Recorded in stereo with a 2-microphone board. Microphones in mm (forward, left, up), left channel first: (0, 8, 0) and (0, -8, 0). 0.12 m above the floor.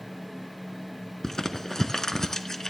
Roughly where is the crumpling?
Left.